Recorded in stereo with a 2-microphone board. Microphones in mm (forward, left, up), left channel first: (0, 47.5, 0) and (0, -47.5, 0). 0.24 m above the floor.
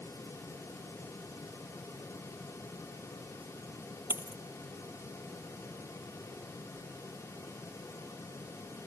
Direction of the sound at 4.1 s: 20° right (ahead or behind).